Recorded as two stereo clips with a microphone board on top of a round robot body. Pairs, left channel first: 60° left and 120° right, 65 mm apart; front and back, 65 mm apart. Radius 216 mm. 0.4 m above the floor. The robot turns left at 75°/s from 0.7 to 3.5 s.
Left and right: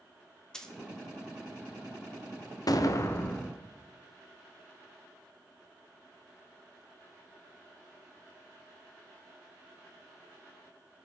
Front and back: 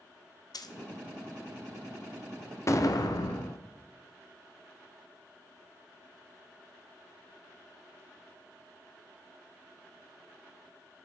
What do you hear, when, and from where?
0.5 s a dropped coin: 20° right, 0.6 m; by 0.8 s 25° right, 0.6 m
2.7 s an explosion: 40° left, 0.7 m; by 3.6 s 20° right, 0.7 m